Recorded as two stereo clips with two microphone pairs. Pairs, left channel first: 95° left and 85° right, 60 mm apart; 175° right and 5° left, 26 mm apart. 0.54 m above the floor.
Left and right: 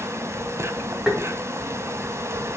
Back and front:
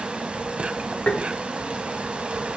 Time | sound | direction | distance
0.0 | an insect | 45° right | 1.0 m
1.1 | tapping | 165° right | 2 m